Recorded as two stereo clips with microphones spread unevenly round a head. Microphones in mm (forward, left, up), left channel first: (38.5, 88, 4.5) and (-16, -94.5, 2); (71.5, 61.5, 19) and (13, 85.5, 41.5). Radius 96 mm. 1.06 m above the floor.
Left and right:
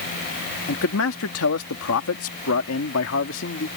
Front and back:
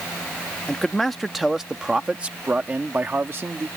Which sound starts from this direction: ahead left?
A man speaking, at 0.7 s.